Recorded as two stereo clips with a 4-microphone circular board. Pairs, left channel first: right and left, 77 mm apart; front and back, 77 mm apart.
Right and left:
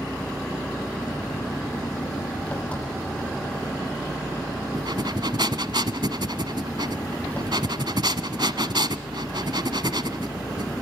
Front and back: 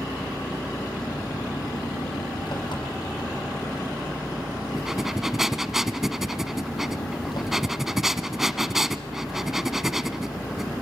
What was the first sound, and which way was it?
An engine running, 20° right.